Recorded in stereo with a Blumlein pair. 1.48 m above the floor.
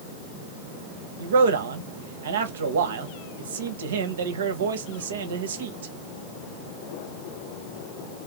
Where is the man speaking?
60° right, 1.2 m.